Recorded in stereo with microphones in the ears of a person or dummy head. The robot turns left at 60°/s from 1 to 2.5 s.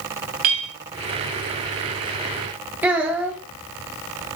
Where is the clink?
30° right (ahead or behind), 0.9 m.